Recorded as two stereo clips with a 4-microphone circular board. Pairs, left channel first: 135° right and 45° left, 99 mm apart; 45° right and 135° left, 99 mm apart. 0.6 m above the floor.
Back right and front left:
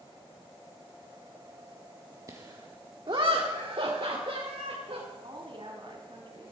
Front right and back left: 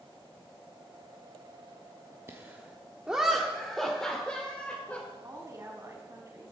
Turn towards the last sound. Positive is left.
turn(degrees=80)